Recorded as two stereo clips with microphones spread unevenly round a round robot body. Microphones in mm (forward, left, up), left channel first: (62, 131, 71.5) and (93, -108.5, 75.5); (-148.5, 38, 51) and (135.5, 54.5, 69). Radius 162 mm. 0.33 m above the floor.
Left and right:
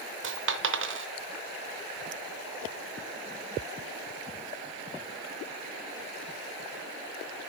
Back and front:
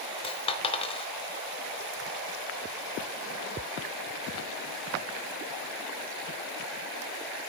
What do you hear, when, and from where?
0.2 s a dropped coin: 110° right, 0.8 m